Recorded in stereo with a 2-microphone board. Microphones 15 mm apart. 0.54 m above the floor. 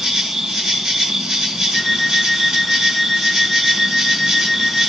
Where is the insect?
55° right (ahead or behind), 3 m.